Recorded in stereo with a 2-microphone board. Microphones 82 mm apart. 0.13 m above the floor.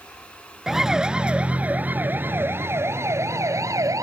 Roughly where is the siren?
Centre.